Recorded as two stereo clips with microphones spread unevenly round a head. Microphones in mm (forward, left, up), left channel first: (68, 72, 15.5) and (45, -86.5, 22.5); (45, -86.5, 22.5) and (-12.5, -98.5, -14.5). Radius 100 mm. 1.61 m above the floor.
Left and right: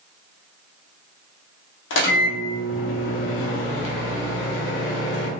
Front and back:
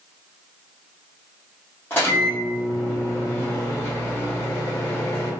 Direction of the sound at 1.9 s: 80° left.